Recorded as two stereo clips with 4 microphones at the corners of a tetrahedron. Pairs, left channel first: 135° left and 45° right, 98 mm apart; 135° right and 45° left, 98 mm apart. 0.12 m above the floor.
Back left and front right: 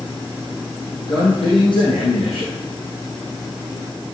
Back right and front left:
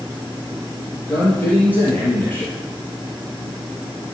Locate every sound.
1.1 s a man speaking: 155° left, 4.5 m